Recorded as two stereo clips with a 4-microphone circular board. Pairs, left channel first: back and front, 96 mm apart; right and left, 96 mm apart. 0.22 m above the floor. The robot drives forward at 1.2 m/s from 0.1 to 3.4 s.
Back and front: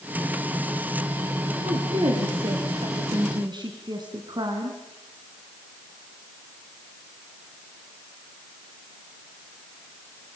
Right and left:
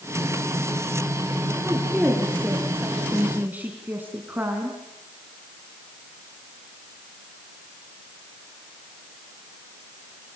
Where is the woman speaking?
10° left, 4.5 m; by 4.8 s 25° left, 2.5 m.